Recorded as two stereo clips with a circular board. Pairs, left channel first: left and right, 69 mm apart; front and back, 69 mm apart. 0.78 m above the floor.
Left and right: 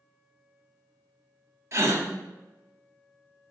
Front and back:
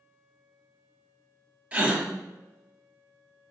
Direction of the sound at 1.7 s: 115° right.